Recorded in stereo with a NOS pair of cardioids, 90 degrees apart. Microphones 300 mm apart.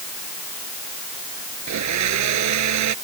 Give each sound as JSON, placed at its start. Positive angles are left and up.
{"t": 1.7, "sound": "a blender", "azimuth_deg": -70}